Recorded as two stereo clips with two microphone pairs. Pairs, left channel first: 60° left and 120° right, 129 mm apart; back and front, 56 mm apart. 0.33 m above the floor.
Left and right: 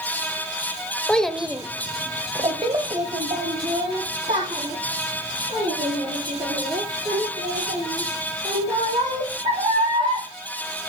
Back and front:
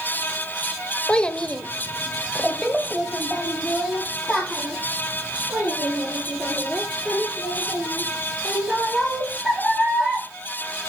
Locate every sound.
1.1 s a child speaking: 130° left, 0.6 m; by 10.2 s 85° right, 5.5 m